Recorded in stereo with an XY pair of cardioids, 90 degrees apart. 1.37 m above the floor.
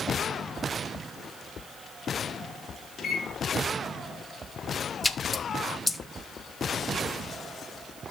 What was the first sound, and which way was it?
A microwave, 55° left.